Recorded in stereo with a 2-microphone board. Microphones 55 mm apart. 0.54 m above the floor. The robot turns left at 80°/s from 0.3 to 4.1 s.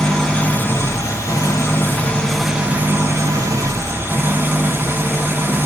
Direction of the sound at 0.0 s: 165° left.